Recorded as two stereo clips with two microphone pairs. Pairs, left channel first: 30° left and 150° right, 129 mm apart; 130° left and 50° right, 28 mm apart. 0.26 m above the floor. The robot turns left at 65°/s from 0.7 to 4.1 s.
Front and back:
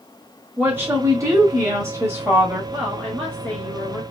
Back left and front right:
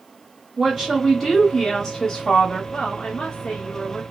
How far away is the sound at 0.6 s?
About 1.0 m.